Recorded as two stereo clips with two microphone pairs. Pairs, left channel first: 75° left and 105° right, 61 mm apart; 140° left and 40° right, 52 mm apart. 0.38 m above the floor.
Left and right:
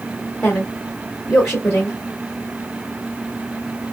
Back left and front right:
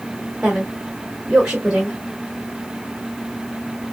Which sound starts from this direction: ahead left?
A woman speaking, at 0.4 s.